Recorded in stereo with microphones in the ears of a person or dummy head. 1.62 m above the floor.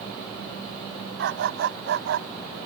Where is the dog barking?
65° right (ahead or behind).